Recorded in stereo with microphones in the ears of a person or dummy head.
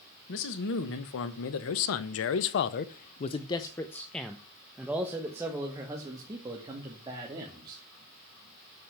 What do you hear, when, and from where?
0.3 s a man speaking: 60° left (ahead or behind), 1.6 m; by 7.8 s 25° right (ahead or behind), 3 m